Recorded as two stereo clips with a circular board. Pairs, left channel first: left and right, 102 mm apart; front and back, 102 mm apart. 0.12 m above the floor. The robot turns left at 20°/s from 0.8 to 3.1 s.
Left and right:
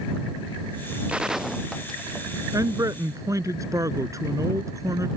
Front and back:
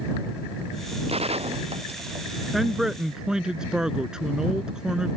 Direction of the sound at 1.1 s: 170° right.